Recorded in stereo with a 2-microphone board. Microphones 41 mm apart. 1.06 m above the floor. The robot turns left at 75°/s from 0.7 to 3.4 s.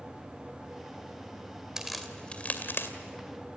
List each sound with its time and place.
1.8 s a crack: 15° right (ahead or behind), 2.5 m; by 2.9 s 70° left (ahead or behind), 2.5 m